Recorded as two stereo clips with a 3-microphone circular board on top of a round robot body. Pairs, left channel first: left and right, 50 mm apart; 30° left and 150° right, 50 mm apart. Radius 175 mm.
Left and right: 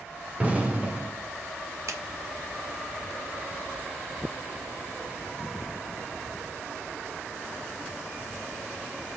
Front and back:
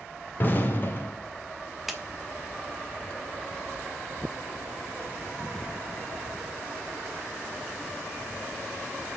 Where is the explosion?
25° right, 2.5 m.